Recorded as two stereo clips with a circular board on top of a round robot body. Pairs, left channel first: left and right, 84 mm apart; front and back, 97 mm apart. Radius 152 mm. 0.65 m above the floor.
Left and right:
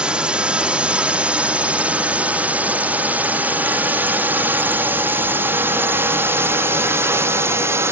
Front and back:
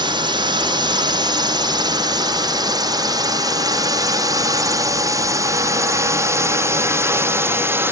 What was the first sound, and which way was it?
A drone, 165° right.